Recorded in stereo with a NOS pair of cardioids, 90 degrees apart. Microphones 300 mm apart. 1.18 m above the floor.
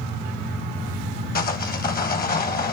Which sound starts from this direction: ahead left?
Sawing, at 1.4 s.